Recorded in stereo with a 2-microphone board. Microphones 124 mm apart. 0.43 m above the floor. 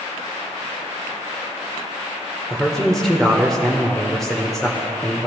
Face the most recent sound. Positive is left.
turn(degrees=5)  # may be behind; listen again after turning